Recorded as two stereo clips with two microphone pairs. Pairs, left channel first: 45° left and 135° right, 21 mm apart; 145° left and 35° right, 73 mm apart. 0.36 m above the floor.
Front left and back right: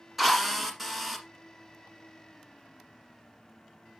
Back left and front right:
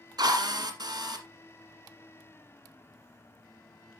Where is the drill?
55° right, 1.7 m.